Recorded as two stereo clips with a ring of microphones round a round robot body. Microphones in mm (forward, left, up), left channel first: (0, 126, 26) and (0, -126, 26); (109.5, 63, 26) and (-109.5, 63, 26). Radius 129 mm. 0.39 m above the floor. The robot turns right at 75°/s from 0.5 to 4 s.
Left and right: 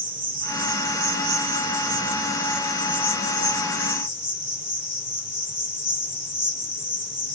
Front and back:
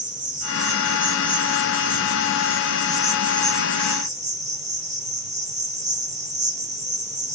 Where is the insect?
135° right, 1.4 m; by 7.4 s 125° left, 1.4 m.